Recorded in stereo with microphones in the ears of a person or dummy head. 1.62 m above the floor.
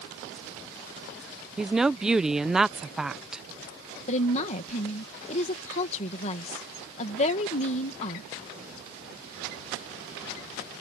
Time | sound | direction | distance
1.6 | a woman speaking | 5° right (ahead or behind) | ?
4.1 | a woman speaking | 40° left (ahead or behind) | ?